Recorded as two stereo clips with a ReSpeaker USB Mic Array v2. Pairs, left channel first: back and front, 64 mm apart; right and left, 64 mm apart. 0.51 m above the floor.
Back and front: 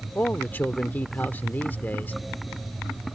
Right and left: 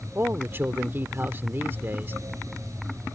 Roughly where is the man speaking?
Behind left.